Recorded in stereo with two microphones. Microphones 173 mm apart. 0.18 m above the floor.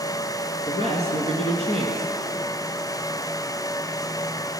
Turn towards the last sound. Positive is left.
turn(degrees=40)  # may be behind; listen again after turning